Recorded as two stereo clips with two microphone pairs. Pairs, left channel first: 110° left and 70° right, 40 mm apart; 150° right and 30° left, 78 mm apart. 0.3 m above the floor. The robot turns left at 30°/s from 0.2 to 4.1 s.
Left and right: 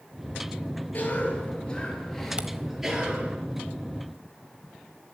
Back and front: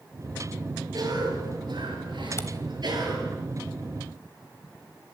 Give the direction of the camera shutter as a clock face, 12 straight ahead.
4 o'clock.